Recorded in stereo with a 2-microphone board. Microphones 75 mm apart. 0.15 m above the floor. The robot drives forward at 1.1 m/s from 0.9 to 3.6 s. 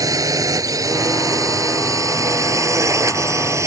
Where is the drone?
50° right (ahead or behind); by 3.7 s 45° right (ahead or behind).